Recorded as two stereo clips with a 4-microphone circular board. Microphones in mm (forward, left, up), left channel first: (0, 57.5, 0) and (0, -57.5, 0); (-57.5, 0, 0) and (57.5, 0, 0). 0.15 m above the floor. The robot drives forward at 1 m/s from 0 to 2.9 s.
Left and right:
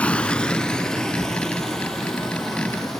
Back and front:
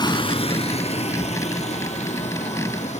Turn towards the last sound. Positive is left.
turn(degrees=180)